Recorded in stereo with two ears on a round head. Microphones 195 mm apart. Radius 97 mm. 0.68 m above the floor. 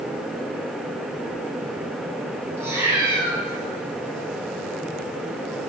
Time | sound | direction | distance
2.6 | a cat meowing | 10° right (ahead or behind) | 2.5 m